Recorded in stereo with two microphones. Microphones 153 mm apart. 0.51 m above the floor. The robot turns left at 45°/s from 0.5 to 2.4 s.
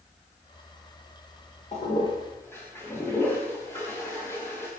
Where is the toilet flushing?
45° left (ahead or behind), 10 m; by 4.7 s 15° left (ahead or behind), 10 m.